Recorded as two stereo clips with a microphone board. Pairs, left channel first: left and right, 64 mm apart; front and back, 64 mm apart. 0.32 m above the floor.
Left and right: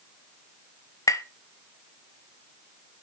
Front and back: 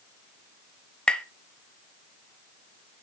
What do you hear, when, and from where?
1.1 s tapping: 75° left, 0.7 m